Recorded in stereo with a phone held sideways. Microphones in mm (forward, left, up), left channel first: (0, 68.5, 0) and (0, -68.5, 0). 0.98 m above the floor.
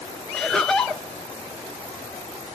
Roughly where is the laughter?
Centre.